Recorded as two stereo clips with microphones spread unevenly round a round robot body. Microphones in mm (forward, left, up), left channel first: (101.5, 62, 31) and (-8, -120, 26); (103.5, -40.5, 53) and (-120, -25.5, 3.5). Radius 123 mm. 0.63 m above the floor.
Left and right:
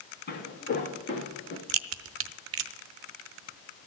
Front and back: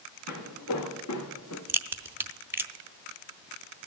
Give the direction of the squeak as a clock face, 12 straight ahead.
I don't hear a squeak.